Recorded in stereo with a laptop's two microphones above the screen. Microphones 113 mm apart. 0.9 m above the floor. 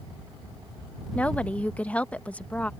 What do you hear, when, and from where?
1.1 s a woman speaking: 15° left (ahead or behind)